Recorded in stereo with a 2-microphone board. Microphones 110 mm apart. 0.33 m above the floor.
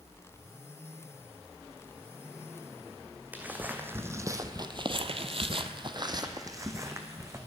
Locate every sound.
3.3 s footsteps: 15° right (ahead or behind), 1.3 m; by 7.4 s 25° right (ahead or behind), 1.6 m